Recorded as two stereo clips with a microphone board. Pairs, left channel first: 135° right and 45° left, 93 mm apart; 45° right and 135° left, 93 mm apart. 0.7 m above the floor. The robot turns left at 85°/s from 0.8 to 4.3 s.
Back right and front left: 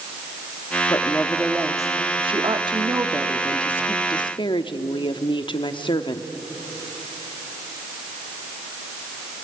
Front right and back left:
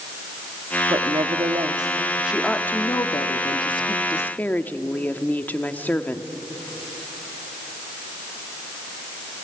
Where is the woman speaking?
175° left, 1.1 m; by 6.3 s 115° right, 1.1 m.